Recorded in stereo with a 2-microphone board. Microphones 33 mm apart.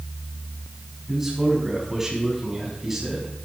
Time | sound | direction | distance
1.1 | a man speaking | 10° right (ahead or behind) | 6.5 m